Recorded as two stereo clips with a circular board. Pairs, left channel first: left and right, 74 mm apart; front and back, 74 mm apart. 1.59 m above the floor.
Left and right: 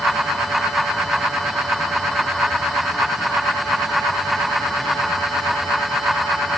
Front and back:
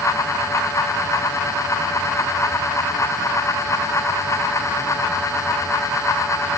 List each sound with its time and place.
Only background noise.